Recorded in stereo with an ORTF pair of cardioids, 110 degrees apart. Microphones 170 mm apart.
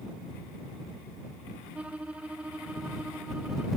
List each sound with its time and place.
1.8 s a violin: 5° right